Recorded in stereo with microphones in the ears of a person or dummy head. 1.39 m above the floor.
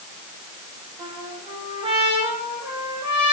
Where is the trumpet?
25° right (ahead or behind), 8 m.